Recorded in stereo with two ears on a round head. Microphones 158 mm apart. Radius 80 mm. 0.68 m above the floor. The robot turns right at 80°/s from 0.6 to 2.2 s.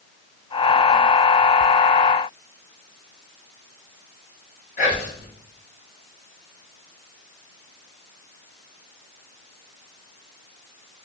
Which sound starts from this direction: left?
Whispering, at 4.8 s.